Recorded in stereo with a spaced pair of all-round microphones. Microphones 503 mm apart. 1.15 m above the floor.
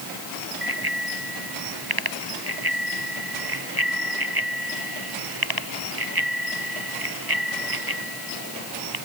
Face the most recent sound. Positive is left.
turn(degrees=-45)  # may be behind; listen again after turning